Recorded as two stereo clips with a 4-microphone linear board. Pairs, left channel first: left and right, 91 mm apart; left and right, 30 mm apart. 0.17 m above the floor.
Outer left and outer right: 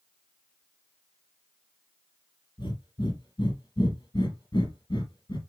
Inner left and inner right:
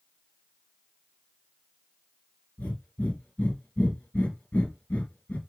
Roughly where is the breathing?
Left.